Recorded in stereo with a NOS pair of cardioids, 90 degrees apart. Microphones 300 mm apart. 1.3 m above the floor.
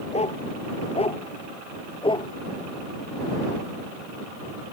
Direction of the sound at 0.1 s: 20° left.